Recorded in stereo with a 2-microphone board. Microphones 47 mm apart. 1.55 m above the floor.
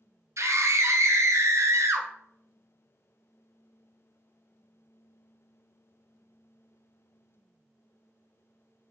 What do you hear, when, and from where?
0.4 s a scream: 70° right (ahead or behind), 0.7 m